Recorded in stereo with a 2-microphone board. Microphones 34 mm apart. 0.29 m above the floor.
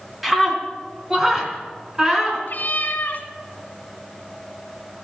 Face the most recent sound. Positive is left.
turn(degrees=55)  # may be behind; listen again after turning